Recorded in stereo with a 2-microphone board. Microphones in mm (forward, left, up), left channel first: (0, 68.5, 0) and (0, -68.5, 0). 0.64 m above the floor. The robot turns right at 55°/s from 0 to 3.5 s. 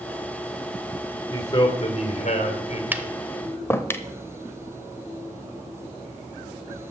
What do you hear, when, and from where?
1.3 s a man speaking: 35° left, 2.5 m; by 2.8 s 115° left, 2.5 m
2.9 s tapping: 15° right (ahead or behind), 0.7 m; by 4.0 s 15° left (ahead or behind), 0.7 m